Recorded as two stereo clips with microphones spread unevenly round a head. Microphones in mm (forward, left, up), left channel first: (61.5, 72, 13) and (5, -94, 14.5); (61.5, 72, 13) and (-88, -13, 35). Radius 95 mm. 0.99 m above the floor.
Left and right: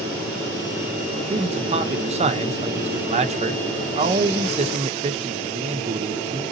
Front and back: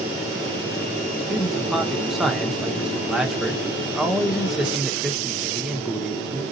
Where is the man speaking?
60° right, 0.6 m.